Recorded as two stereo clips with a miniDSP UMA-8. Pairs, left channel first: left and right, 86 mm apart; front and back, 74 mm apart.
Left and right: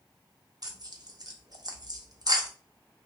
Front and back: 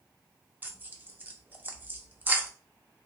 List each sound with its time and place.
0.6 s tearing paper: 120° right, 0.5 m